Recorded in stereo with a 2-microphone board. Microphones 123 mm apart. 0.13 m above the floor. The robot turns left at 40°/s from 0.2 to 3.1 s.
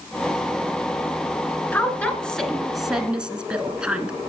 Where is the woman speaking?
15° left (ahead or behind), 1.2 m; by 4.2 s 10° right (ahead or behind), 1.2 m.